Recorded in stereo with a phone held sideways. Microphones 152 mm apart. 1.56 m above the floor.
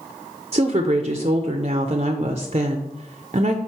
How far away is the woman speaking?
About 0.5 m.